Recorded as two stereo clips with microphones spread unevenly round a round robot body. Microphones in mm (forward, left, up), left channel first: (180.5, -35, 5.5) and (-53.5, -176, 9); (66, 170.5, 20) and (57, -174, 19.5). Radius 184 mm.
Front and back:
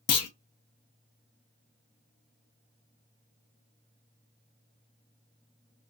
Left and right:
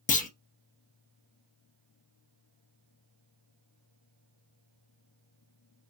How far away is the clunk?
About 0.6 m.